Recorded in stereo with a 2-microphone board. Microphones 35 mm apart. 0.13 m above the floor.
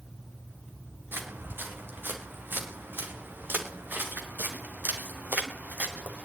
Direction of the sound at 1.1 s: 90° right.